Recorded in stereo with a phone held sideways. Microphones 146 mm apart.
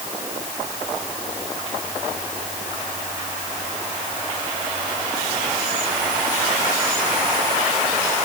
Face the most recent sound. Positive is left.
No sound to turn to.